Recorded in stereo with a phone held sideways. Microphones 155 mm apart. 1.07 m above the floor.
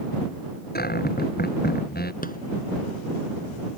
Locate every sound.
0.8 s a cupboard door: 85° left
2.2 s a rattle: 70° left (ahead or behind)